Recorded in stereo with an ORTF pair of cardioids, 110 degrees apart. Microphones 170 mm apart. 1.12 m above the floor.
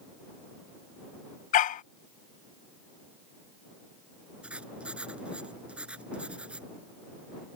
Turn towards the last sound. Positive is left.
turn(degrees=-5)